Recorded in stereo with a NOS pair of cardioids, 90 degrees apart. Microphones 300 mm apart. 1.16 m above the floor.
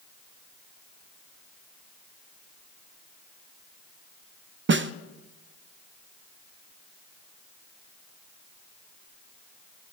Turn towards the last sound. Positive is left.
turn(degrees=-40)